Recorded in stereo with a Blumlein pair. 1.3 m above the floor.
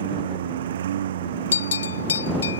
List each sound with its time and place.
0.0 s a lawn mower: 60° right
1.5 s a bell: 70° left